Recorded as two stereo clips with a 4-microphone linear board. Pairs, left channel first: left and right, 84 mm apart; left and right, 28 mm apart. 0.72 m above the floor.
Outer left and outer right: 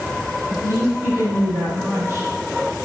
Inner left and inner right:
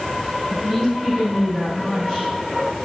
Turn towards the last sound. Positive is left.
turn(degrees=-35)  # may be behind; listen again after turning